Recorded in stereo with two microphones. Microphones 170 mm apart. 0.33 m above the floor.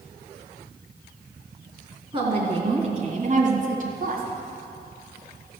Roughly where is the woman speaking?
Right.